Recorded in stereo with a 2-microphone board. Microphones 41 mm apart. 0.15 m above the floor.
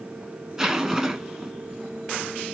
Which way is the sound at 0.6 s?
15° right (ahead or behind).